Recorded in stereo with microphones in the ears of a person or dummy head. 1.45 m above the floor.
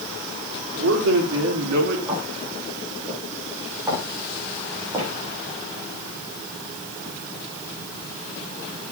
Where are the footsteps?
20° right (ahead or behind), 8 m.